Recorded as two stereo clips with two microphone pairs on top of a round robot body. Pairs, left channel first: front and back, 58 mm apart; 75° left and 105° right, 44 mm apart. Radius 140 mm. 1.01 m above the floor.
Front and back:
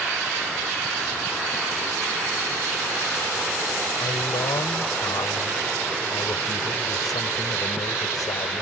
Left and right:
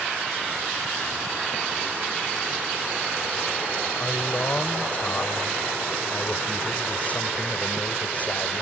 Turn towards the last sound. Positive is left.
turn(degrees=20)